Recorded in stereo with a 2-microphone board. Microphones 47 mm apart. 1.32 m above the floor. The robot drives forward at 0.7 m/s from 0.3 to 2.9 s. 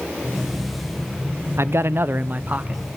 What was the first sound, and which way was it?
A man speaking, 70° right (ahead or behind).